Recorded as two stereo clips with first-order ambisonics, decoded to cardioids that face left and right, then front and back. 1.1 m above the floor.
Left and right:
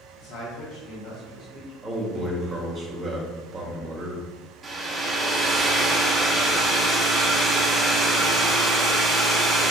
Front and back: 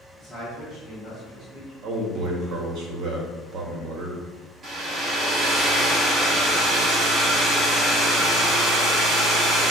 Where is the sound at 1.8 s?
160° right, 0.8 m.